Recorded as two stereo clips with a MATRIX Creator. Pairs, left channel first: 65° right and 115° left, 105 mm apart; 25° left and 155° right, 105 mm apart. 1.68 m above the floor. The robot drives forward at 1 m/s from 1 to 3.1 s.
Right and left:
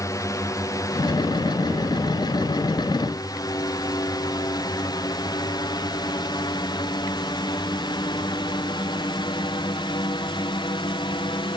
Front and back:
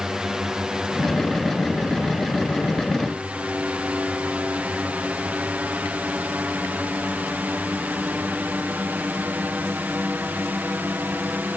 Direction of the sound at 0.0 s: 80° right.